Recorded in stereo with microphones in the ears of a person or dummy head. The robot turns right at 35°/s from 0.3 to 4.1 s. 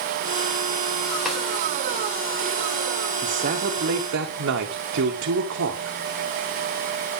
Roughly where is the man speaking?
Behind right.